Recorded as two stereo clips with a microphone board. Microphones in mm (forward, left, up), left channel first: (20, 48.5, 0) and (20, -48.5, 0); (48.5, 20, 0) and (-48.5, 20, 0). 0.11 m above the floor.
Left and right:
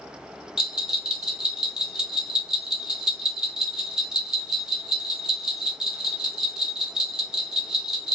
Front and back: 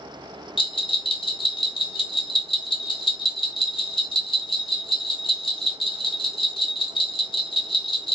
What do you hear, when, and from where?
0.6 s a bell: 10° right, 1.3 m